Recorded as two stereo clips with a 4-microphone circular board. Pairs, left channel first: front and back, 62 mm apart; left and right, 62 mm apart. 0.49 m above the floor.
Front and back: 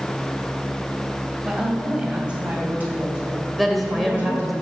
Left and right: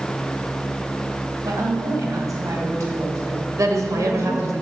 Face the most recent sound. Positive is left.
turn(degrees=-90)